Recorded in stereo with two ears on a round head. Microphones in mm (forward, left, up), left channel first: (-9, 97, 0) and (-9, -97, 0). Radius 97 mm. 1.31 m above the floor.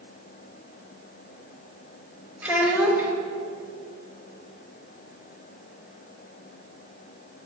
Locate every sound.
2.4 s a child speaking: 5° right (ahead or behind), 1.4 m